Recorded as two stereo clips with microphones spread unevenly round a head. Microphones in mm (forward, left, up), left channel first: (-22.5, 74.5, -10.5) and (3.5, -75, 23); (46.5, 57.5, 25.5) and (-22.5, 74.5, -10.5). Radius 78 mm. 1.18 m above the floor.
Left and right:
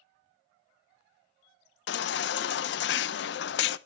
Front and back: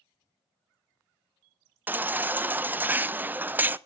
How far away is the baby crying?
About 0.6 m.